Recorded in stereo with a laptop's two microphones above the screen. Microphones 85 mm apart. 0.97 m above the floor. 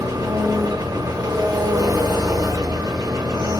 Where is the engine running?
45° right (ahead or behind), 0.9 m.